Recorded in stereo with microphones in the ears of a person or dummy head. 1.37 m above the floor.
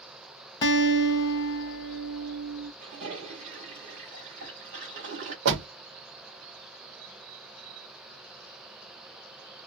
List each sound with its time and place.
0.6 s a guitar: 25° left (ahead or behind), 0.7 m
2.8 s a toilet flushing: 40° right (ahead or behind), 1.3 m
5.5 s a door slam: 65° right (ahead or behind), 0.8 m